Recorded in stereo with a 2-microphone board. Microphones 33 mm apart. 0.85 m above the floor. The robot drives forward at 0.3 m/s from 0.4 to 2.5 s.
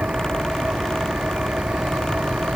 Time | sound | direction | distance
0.0 | an engine running | 45° right (ahead or behind) | ?